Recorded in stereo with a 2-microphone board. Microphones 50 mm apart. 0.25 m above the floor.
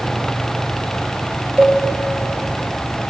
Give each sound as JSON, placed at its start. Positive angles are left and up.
{"t": 1.6, "sound": "a cowbell", "side_deg": -30, "distance_m": 5.5}